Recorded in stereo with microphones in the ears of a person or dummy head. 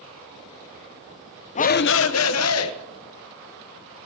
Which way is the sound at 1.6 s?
35° left (ahead or behind).